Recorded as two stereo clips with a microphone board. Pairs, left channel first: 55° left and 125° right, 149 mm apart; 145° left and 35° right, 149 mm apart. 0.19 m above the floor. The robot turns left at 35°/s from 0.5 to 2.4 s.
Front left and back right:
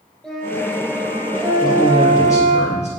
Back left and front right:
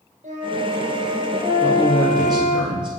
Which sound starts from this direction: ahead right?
A flute, at 0.2 s.